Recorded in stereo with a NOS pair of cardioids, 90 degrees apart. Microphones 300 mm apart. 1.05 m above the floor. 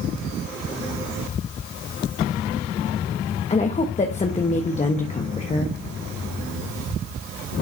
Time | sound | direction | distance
3.5 | a woman speaking | 20° left | 1.3 m